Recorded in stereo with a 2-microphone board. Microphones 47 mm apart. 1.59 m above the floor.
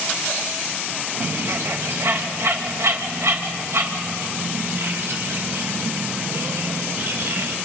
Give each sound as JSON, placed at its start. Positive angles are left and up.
{"t": 1.2, "sound": "a bird", "side_deg": -75, "distance_m": 2.0}